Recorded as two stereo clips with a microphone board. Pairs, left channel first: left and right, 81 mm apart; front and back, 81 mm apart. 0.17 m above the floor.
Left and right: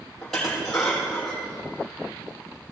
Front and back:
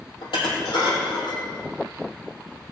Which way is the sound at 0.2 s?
5° left.